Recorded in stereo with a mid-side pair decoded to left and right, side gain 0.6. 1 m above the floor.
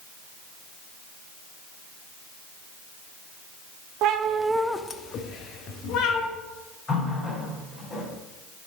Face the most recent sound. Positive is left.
turn(degrees=30)